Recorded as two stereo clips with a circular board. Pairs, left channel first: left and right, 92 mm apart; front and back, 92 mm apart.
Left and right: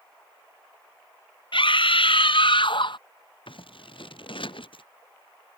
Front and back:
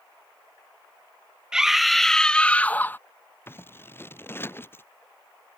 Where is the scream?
100° left; by 3.0 s 65° left.